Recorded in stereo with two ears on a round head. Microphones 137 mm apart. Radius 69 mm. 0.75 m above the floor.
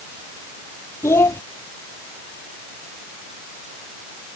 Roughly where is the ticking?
No ticking in this recording.